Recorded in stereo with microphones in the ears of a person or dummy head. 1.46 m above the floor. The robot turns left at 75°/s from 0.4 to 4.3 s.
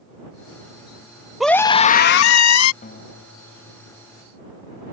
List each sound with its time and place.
1.4 s a scream: 175° right; by 2.7 s 85° left
2.8 s a guitar: 145° left; by 4.2 s 40° left